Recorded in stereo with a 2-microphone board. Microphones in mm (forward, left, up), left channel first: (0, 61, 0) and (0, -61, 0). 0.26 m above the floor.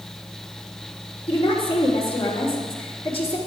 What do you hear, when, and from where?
1.3 s a woman speaking: 45° left (ahead or behind), 3.5 m